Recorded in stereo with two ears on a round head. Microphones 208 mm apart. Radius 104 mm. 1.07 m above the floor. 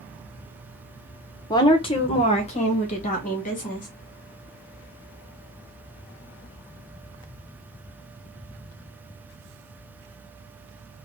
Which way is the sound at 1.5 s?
15° left (ahead or behind).